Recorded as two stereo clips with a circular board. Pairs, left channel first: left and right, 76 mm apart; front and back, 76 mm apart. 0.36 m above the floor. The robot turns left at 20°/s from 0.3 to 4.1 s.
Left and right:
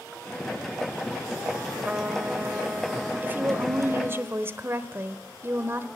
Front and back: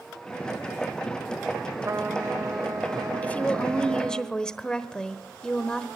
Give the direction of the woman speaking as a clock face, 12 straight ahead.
2 o'clock.